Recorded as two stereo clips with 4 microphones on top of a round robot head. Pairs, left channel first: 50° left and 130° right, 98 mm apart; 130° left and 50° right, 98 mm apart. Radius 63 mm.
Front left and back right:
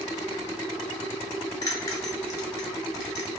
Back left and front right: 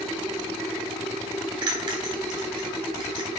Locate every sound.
1.6 s a bell: 5° right, 0.7 m